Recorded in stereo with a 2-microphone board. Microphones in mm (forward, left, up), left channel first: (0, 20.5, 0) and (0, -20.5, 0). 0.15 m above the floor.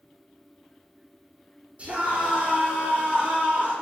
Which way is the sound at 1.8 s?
30° right (ahead or behind).